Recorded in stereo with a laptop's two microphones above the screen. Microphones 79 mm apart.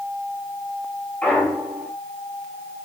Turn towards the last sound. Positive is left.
turn(degrees=15)  # may be behind; listen again after turning